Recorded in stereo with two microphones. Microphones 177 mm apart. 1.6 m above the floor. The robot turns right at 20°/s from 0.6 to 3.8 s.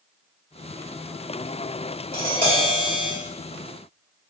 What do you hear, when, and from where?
2.1 s tapping: 55° right (ahead or behind), 1.5 m; by 3.1 s 35° right (ahead or behind), 1.5 m